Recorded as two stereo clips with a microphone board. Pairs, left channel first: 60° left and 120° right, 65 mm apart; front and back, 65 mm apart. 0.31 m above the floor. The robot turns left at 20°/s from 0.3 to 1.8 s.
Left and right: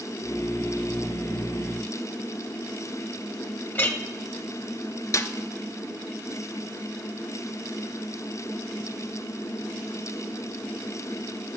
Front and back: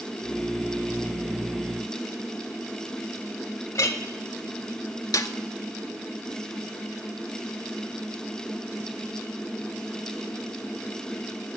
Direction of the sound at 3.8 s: 10° left.